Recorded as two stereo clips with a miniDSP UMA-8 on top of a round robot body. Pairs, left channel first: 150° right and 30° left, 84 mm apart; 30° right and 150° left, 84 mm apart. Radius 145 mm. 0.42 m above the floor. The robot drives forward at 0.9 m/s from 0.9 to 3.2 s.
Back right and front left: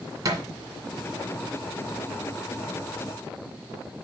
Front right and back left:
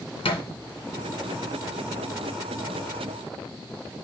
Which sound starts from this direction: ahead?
A thud, at 0.2 s.